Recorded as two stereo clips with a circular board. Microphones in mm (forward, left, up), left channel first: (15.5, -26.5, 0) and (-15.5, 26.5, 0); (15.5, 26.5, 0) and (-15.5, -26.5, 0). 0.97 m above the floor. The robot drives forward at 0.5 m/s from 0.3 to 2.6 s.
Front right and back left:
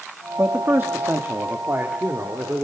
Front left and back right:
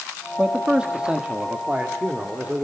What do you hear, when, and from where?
0.4 s a man speaking: 165° left, 1.3 m; by 2.6 s 170° left, 2.5 m